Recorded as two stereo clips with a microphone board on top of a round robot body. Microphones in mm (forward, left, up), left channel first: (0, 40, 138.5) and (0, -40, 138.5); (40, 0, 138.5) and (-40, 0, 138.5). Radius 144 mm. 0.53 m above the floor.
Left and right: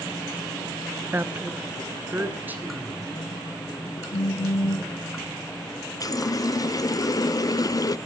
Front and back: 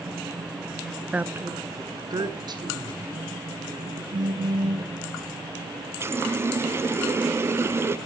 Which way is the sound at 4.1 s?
145° left.